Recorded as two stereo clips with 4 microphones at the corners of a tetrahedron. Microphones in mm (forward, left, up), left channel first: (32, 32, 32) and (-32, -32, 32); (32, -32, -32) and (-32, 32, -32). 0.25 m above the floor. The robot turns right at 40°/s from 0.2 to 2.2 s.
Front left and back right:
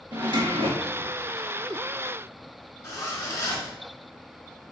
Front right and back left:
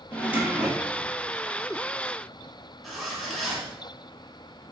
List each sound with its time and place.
0.1 s a drawer: 160° right, 1.2 m; by 1.1 s 125° right, 1.2 m
2.8 s a zipper: 40° left, 1.2 m